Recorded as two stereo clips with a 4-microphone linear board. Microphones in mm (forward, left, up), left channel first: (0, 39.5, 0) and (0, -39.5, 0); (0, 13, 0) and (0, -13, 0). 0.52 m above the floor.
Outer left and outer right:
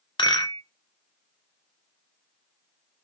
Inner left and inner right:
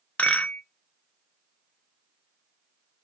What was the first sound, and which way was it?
A rattle, 85° left.